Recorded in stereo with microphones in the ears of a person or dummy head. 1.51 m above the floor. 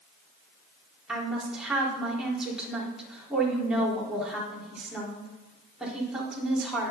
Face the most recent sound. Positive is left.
turn(degrees=-5)  # may be behind; listen again after turning